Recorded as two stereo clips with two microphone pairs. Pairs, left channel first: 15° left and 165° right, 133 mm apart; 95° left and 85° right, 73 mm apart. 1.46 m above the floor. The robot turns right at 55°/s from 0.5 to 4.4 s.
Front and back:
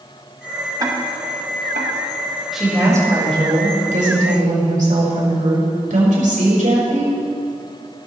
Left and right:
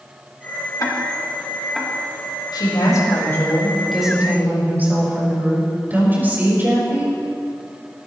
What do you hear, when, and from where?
0.8 s ticking: 135° left, 1.8 m; by 1.9 s 165° right, 1.8 m
2.5 s a woman speaking: 105° left, 5.5 m; by 7.2 s 150° right, 5.5 m